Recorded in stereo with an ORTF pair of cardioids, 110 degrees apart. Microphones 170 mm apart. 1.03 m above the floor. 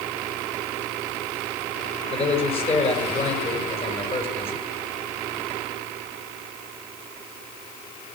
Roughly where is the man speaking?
Ahead left.